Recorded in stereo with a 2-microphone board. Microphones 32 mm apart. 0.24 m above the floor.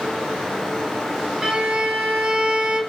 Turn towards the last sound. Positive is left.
turn(degrees=-20)  # may be behind; listen again after turning